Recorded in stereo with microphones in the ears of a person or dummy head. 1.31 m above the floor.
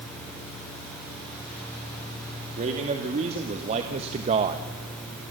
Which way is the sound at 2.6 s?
35° right (ahead or behind).